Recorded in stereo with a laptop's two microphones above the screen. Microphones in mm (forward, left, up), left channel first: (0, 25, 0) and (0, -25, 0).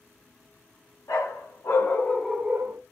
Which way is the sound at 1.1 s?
70° left (ahead or behind).